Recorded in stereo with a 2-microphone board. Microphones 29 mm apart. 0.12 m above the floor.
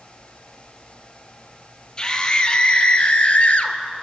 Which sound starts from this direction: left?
A scream, at 2.0 s.